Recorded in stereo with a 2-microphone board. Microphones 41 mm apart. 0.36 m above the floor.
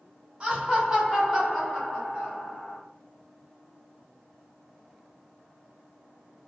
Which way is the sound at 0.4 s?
20° right (ahead or behind).